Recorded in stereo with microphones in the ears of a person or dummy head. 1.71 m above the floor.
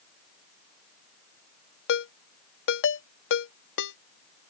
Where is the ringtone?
75° left (ahead or behind).